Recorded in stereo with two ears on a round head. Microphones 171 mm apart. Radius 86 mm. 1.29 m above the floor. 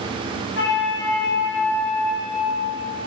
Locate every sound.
0.6 s a flute: 60° left (ahead or behind), 1.3 m